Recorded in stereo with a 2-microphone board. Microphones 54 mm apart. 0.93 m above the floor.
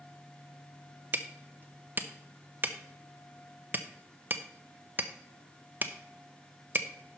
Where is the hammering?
35° right (ahead or behind), 0.7 m.